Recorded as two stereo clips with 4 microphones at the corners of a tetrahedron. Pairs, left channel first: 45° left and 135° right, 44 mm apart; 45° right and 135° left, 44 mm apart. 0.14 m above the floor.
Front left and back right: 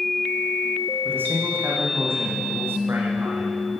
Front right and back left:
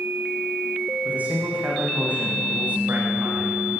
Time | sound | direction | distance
1.1 | a man speaking | 170° right | 8.5 m